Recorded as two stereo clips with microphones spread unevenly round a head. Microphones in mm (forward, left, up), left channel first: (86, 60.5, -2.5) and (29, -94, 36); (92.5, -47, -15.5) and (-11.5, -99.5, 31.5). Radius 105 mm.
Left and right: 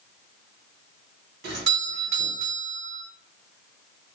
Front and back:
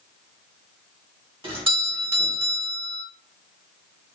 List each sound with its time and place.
1.4 s a doorbell: 100° right, 2 m